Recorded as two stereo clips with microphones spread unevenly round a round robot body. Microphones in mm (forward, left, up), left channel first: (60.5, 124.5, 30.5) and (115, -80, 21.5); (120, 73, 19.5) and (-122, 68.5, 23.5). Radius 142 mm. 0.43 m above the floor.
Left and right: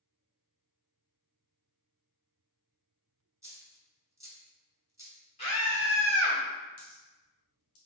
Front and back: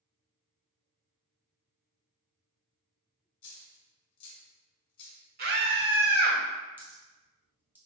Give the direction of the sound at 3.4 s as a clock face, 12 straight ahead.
12 o'clock.